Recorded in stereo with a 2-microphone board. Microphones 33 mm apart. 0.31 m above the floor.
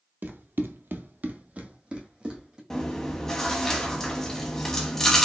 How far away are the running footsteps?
About 0.7 m.